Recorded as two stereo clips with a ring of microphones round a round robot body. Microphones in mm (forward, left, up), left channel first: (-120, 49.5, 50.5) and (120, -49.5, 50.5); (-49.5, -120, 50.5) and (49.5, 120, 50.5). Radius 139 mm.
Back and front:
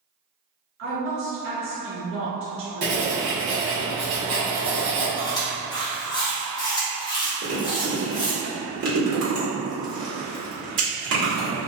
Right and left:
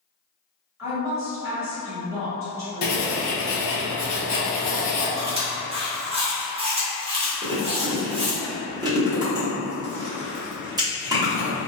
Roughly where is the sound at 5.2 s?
Left.